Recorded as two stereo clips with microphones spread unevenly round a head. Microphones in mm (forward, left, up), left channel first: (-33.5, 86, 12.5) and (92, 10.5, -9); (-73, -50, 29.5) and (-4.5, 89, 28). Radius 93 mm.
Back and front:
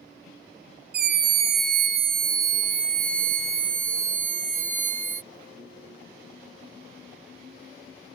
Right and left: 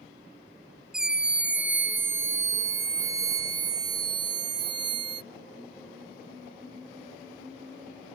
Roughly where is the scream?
Ahead right.